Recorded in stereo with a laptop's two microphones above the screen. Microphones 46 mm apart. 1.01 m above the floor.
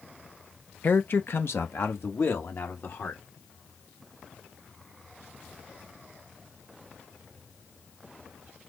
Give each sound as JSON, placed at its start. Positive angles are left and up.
{"t": 0.8, "sound": "a man speaking", "side_deg": 45, "distance_m": 0.5}